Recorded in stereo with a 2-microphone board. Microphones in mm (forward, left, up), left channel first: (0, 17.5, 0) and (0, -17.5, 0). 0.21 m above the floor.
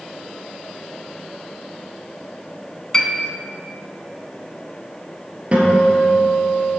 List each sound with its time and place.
2.9 s a piano: 20° left (ahead or behind), 1.5 m
5.5 s a guitar: 40° right (ahead or behind), 4 m